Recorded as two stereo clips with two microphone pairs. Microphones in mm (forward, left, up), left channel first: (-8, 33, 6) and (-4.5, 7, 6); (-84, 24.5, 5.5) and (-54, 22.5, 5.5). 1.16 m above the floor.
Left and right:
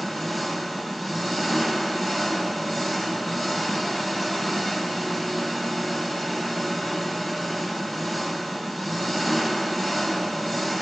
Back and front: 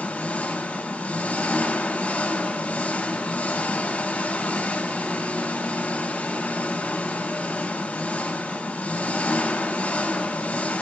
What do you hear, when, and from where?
0.0 s an engine running: 160° right, 2.5 m